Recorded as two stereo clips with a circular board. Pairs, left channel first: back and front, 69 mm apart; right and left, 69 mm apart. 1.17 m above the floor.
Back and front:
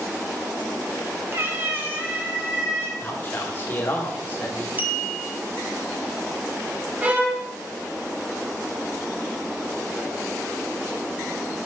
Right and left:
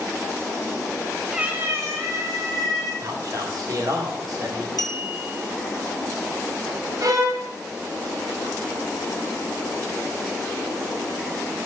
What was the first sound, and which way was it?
A cat meowing, 15° left.